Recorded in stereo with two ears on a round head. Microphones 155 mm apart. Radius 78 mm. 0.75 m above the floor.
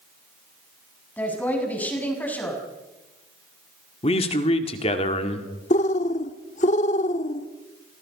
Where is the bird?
40° left (ahead or behind), 1.1 m.